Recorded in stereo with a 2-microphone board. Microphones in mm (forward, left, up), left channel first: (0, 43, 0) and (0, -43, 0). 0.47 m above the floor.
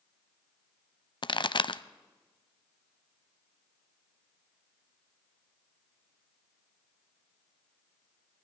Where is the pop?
65° left (ahead or behind), 0.6 m.